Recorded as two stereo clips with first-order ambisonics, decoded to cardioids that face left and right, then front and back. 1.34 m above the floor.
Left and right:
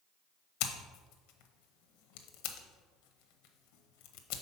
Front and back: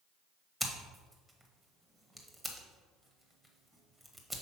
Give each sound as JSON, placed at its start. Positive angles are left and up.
{"t": 0.6, "sound": "scissors", "azimuth_deg": 90, "distance_m": 0.8}